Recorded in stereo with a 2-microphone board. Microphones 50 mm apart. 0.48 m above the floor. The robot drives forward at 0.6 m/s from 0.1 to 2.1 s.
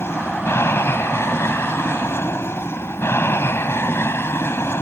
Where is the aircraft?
55° left (ahead or behind).